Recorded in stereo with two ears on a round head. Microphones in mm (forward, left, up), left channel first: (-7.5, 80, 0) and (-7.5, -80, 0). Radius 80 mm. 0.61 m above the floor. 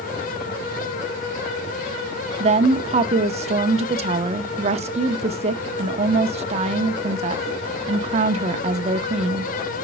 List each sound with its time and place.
2.4 s a woman speaking: 35° right (ahead or behind), 0.8 m